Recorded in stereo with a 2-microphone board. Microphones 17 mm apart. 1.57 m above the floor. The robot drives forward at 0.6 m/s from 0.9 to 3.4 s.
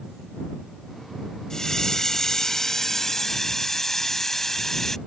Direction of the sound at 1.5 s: 40° left (ahead or behind).